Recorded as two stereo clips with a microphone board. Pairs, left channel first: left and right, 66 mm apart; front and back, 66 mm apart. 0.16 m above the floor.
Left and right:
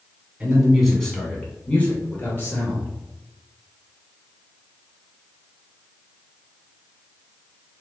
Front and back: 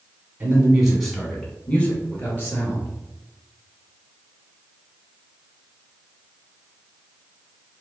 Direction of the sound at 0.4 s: 155° right.